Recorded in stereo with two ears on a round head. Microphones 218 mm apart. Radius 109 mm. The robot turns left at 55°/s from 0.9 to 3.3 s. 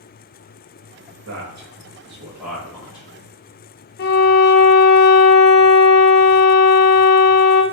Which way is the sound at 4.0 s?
40° left (ahead or behind).